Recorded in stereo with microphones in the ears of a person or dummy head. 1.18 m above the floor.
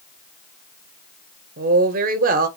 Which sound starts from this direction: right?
A woman speaking, at 1.6 s.